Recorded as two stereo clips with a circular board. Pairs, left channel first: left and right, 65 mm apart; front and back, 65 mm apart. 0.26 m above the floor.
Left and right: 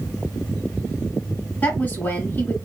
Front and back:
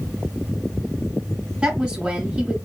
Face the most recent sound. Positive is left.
turn(degrees=115)